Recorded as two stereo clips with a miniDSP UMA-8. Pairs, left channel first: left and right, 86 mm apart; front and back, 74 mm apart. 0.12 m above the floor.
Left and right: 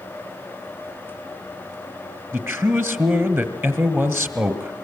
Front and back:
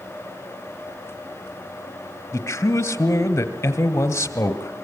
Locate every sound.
2.3 s a man speaking: 40° right, 2.0 m